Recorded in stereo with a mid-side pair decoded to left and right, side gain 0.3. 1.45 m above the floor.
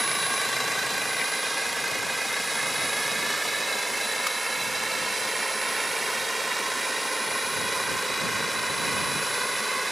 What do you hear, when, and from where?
0.0 s a drone: 20° right; by 9.9 s 15° right